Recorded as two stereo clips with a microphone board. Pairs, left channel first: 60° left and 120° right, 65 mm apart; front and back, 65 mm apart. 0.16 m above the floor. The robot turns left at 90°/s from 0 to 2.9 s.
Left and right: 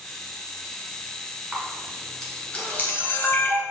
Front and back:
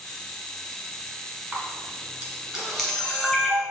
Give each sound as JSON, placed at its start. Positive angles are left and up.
{"t": 1.5, "sound": "a camera shutter", "azimuth_deg": -165, "distance_m": 1.3}